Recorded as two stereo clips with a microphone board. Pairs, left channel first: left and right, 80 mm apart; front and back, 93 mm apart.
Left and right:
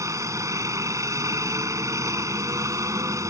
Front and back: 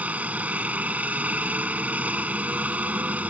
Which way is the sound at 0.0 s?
115° right.